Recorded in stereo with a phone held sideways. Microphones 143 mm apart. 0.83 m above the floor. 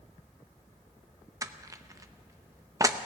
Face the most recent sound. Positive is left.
turn(degrees=-25)  # may be behind; listen again after turning